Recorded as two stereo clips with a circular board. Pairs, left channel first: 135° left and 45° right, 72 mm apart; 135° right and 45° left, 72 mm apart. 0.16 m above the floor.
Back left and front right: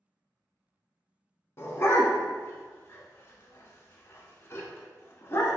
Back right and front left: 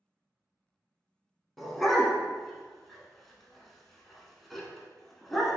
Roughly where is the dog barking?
Behind left.